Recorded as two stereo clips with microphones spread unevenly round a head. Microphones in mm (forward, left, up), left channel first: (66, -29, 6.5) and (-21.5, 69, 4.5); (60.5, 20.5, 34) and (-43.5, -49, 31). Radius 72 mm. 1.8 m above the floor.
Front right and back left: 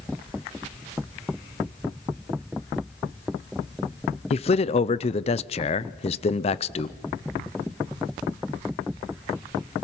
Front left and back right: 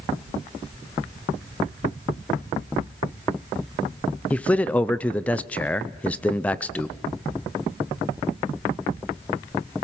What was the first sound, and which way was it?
A man speaking, 40° right.